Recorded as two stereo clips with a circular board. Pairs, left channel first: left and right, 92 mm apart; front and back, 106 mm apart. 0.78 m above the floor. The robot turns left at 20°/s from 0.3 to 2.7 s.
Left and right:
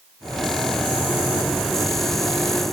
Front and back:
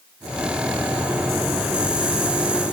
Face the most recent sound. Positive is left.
No sound to turn to.